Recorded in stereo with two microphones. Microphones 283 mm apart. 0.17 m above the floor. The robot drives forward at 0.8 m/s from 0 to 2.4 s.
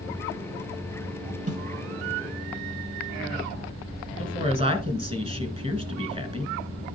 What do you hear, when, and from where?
1.5 s a snare drum: 55° right (ahead or behind), 3 m
4.2 s a woman speaking: 20° right (ahead or behind), 1.8 m